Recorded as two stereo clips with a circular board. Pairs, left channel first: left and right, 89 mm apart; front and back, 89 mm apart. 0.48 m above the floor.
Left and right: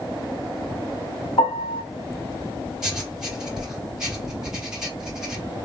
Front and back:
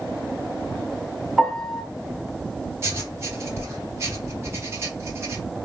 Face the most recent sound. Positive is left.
turn(degrees=-165)